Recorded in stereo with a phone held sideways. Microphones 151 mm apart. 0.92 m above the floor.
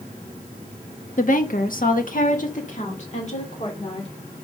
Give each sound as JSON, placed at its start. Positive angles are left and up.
{"t": 1.2, "sound": "a woman speaking", "side_deg": 55, "distance_m": 1.2}